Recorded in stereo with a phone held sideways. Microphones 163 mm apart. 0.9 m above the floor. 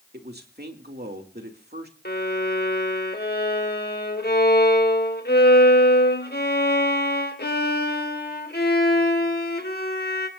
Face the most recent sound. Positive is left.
turn(degrees=70)  # may be behind; listen again after turning